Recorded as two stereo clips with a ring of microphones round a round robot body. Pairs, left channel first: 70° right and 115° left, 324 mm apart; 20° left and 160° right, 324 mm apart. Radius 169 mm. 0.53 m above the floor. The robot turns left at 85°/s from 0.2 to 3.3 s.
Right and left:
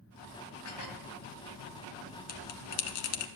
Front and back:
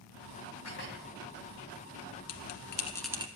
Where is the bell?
Straight ahead, 1.3 m; by 3.3 s 85° right, 1.3 m.